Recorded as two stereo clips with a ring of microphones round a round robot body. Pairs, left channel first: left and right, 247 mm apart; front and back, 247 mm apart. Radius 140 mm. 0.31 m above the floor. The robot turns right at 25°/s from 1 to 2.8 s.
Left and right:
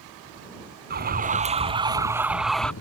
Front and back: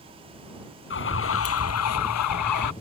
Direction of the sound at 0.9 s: 40° right.